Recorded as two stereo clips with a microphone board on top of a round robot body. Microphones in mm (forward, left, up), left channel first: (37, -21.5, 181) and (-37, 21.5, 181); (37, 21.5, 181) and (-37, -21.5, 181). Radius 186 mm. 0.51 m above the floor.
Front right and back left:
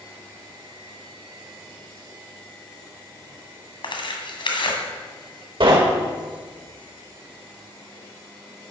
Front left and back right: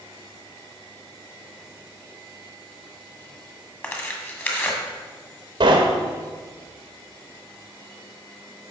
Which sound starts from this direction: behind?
Knocking, at 5.6 s.